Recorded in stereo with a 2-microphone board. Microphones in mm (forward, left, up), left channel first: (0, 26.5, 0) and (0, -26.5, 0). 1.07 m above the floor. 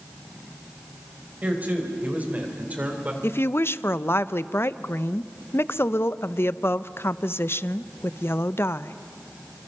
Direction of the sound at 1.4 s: 30° right (ahead or behind).